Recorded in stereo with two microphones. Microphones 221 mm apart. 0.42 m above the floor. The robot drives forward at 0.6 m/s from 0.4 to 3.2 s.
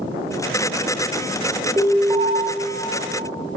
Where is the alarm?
15° right (ahead or behind), 2 m; by 2.3 s 20° right (ahead or behind), 1.9 m.